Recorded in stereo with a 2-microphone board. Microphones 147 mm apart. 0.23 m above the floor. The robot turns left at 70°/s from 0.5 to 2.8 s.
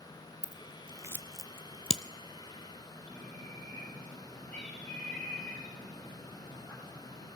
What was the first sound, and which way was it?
Scissors, 55° right (ahead or behind).